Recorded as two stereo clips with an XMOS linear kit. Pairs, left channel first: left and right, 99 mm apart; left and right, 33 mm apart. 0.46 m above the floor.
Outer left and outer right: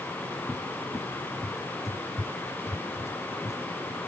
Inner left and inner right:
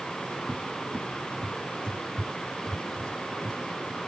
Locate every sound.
0.5 s a cupboard door: 30° left (ahead or behind)